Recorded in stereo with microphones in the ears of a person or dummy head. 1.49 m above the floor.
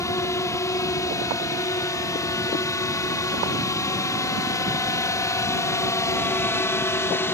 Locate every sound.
0.0 s a drone: 20° left (ahead or behind); by 7.3 s 15° left (ahead or behind)